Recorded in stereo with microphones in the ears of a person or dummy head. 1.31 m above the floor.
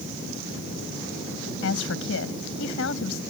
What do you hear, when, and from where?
1.6 s a woman speaking: 75° left (ahead or behind)